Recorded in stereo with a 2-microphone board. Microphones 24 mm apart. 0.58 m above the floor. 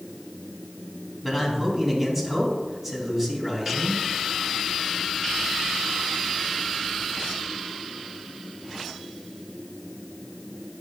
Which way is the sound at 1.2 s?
10° right (ahead or behind).